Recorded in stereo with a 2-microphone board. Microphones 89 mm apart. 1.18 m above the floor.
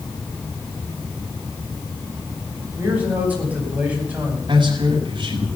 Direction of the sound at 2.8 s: 15° right (ahead or behind).